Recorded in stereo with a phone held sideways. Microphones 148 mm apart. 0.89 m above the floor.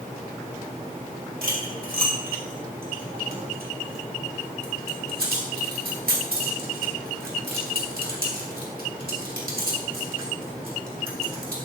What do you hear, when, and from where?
1.4 s cutlery clinking: 85° right, 1.8 m